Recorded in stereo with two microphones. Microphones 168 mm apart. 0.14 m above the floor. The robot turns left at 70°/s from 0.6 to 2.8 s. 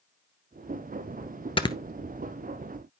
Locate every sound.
1.6 s snoring: 35° left (ahead or behind), 0.6 m; by 1.8 s 20° left (ahead or behind), 0.6 m